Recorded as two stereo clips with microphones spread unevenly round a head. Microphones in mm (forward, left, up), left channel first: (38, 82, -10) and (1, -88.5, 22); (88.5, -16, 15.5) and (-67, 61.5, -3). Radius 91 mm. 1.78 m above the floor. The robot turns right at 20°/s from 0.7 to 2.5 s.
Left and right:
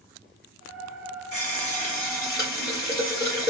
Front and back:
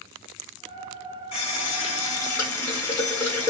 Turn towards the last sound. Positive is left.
turn(degrees=45)